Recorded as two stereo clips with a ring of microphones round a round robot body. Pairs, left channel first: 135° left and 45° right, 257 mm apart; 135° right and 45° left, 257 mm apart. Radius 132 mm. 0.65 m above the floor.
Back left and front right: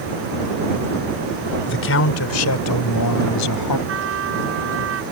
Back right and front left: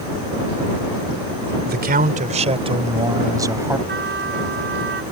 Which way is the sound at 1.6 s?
95° left.